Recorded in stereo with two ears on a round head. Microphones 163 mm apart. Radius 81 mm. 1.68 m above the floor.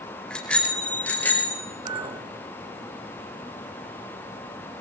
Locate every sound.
0.3 s a bicycle bell: 5° left (ahead or behind), 4 m; by 1.6 s 15° left (ahead or behind), 5.5 m
1.9 s a clink: 30° right (ahead or behind), 4 m